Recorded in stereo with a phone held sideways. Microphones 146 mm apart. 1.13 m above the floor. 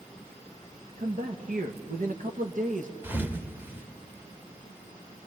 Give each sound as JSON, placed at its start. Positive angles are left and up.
{"t": 1.0, "sound": "a man speaking", "side_deg": -65, "distance_m": 1.4}
{"t": 3.0, "sound": "a thud", "side_deg": -15, "distance_m": 1.1}